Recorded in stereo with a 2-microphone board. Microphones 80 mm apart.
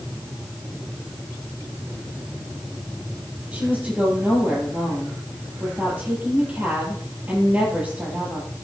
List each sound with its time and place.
3.5 s a woman speaking: 20° right (ahead or behind), 9 m